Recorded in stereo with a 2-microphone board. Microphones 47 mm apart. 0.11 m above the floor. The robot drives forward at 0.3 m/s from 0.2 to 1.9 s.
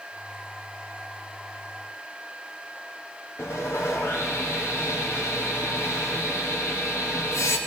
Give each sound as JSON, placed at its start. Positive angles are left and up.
{"t": 3.4, "sound": "sawing", "side_deg": 75, "distance_m": 4.5}